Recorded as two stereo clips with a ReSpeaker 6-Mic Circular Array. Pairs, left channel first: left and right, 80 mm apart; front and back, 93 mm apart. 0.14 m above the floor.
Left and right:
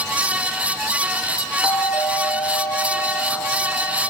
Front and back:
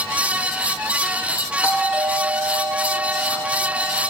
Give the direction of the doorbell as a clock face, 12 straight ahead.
8 o'clock.